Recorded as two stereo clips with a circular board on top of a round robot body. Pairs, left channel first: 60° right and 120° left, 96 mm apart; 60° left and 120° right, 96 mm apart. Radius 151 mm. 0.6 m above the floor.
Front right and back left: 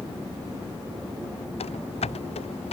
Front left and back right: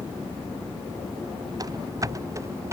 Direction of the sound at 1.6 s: 65° right.